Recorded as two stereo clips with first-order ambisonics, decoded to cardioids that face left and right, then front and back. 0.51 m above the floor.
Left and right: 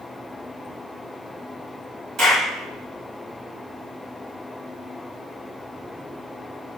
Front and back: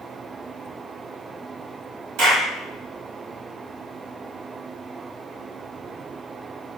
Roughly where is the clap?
Behind right.